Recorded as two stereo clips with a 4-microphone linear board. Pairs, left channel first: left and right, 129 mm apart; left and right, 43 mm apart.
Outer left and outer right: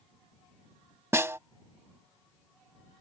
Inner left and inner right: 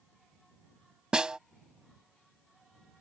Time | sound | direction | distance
1.1 | a snare drum | 20° right (ahead or behind) | ?